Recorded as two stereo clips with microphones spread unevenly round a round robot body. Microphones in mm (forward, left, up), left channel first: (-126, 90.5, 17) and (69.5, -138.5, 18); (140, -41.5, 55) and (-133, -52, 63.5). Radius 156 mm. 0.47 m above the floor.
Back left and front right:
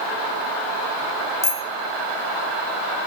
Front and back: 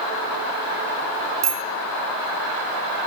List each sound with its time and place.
1.4 s a bicycle bell: 150° right, 2.5 m